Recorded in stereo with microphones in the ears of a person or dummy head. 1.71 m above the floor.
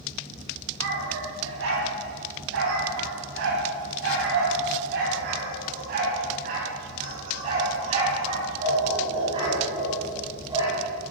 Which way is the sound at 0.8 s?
75° right (ahead or behind).